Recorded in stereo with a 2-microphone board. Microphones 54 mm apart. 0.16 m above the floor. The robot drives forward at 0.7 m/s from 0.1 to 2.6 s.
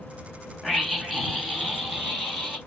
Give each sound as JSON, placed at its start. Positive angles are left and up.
{"t": 0.6, "sound": "a scream", "side_deg": 0, "distance_m": 1.5}